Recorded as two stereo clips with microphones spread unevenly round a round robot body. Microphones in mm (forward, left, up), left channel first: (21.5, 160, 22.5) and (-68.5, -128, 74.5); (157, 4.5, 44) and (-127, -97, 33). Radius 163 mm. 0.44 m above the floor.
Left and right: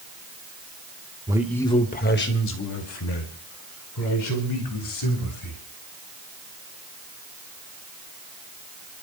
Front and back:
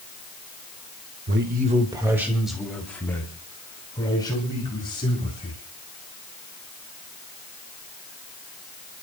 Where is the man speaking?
170° left, 1.2 m; by 5.6 s 95° left, 7 m.